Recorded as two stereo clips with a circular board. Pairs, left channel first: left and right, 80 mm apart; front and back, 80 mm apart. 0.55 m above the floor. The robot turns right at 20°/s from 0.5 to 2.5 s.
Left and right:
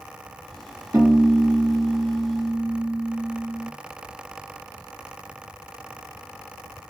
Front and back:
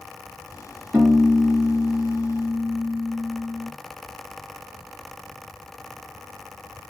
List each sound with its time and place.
0.9 s a piano: 125° right, 1.9 m; by 3.7 s 90° right, 1.9 m